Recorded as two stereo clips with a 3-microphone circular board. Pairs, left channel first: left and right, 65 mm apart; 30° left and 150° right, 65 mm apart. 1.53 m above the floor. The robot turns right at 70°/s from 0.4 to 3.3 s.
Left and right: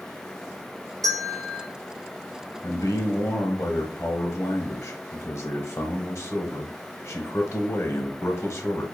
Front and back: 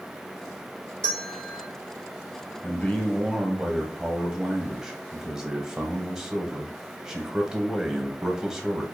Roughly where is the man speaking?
Left.